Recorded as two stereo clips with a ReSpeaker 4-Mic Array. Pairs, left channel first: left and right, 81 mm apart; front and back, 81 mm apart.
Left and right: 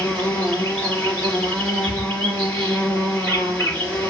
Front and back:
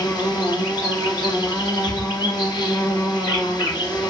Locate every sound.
0.0 s an insect: 20° left, 2.0 m